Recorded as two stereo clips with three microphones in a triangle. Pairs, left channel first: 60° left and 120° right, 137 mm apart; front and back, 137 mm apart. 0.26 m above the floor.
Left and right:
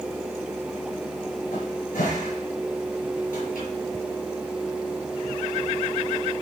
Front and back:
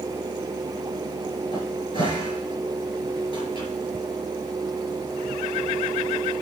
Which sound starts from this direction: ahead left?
A cupboard door, at 1.5 s.